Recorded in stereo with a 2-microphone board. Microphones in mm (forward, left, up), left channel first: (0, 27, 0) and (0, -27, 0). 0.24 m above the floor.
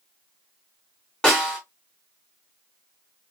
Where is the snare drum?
15° left (ahead or behind), 3 m.